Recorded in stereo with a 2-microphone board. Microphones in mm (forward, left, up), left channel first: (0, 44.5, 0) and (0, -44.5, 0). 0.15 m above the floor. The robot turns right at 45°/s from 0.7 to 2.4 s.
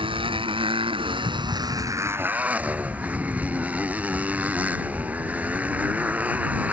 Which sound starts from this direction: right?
A motorcycle, at 0.0 s.